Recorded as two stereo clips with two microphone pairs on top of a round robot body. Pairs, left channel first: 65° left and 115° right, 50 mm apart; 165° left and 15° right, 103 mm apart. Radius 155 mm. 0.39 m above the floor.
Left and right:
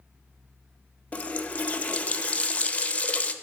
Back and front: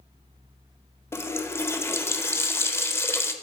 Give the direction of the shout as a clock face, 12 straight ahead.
No shout in this recording.